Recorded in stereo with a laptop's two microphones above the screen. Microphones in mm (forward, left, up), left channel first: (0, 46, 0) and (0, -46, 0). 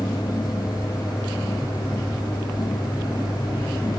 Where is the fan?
50° left (ahead or behind), 3.5 m.